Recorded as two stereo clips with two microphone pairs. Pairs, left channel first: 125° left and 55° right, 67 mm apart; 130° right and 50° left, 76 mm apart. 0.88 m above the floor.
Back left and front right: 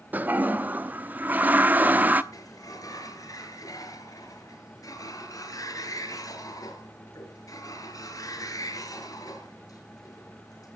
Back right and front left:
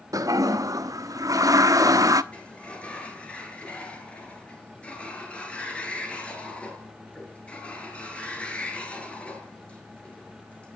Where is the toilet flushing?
10° left, 0.9 m.